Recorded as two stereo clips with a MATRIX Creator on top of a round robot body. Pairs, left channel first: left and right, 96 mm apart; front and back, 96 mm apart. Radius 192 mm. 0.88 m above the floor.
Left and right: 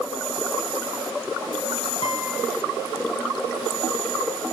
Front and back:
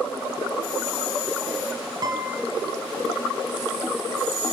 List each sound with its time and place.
2.0 s a guitar: 135° left, 1.0 m